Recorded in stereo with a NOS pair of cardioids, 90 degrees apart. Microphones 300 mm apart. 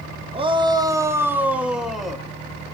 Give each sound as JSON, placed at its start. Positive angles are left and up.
{"t": 0.3, "sound": "a shout", "azimuth_deg": -20, "distance_m": 1.9}